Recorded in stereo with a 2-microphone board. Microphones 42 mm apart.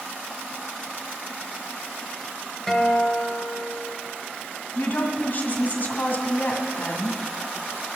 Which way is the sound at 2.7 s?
10° left (ahead or behind).